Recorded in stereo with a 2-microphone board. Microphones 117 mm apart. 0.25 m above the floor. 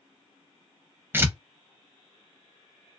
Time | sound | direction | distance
1.1 | tearing paper | 20° right (ahead or behind) | 0.6 m